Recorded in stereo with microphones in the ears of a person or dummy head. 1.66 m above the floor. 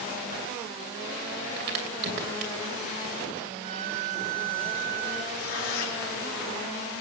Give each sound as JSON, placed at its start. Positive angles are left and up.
{"t": 1.6, "sound": "a crack", "side_deg": -60, "distance_m": 3.0}
{"t": 3.6, "sound": "a violin", "side_deg": -40, "distance_m": 1.2}
{"t": 5.3, "sound": "tearing paper", "side_deg": 75, "distance_m": 5.5}